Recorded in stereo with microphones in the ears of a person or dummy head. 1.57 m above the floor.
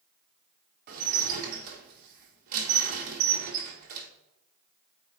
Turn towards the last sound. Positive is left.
turn(degrees=-45)  # may be behind; listen again after turning